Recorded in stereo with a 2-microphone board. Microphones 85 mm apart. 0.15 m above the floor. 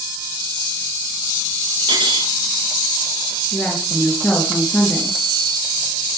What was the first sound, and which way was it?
Cutlery clinking, 70° right (ahead or behind).